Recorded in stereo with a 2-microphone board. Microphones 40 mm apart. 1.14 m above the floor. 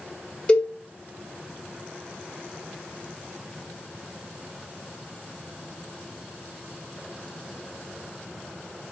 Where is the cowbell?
20° left (ahead or behind), 1.2 m.